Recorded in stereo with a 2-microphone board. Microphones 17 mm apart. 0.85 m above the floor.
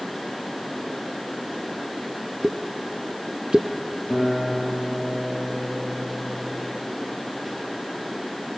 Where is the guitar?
30° left (ahead or behind), 8 m.